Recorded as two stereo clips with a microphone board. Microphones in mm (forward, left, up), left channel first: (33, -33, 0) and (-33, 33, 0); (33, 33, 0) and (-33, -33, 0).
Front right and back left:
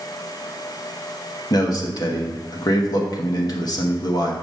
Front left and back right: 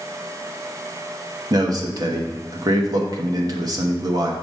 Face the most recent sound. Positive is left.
turn(degrees=-90)